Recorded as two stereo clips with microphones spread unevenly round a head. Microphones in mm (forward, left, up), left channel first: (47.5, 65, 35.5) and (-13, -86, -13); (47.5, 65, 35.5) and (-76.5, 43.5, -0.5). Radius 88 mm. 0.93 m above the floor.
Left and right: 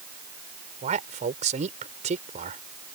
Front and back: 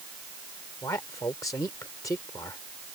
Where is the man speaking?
65° right.